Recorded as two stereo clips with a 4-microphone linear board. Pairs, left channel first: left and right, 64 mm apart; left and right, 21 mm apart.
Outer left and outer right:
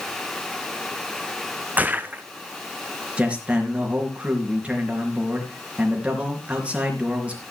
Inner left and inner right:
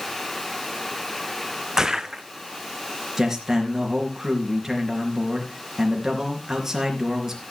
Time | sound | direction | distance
1.8 | footsteps | 25° right (ahead or behind) | 0.9 m
3.2 | a man speaking | 20° right (ahead or behind) | 3.5 m